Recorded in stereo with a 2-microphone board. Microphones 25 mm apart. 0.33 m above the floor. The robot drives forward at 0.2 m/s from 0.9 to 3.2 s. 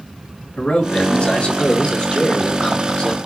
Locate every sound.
0.6 s a man speaking: 55° left (ahead or behind), 2 m; by 3.2 s 50° left (ahead or behind), 2.5 m